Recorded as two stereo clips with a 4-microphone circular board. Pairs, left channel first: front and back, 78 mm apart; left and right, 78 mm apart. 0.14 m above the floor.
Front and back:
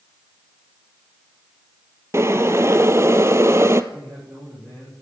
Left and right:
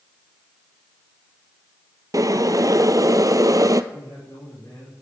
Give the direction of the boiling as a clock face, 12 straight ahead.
4 o'clock.